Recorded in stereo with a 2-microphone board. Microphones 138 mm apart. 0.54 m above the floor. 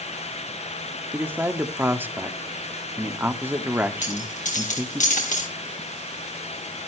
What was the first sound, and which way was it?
A man speaking, 15° right (ahead or behind).